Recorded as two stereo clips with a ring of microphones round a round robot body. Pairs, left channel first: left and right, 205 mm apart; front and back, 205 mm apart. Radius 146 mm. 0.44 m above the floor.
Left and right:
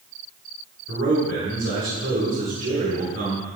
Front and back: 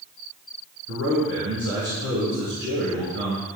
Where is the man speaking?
130° right, 5.5 m.